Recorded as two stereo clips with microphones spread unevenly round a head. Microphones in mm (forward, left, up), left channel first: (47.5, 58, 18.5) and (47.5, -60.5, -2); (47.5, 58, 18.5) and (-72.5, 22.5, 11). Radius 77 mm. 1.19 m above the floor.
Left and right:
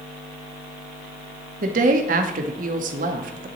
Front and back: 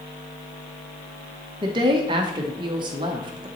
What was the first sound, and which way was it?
A woman speaking, 100° right.